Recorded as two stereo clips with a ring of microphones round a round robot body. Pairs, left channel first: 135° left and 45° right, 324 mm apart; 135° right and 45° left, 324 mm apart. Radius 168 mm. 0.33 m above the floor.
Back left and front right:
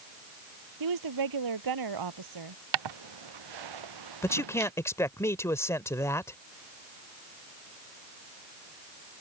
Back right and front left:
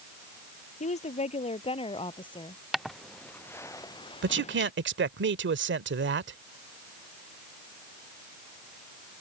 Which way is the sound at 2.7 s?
45° right.